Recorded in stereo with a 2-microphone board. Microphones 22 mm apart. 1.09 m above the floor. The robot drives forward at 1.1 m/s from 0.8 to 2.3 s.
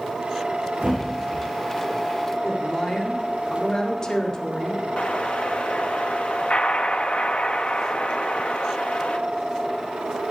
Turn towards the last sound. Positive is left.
turn(degrees=60)  # may be behind; listen again after turning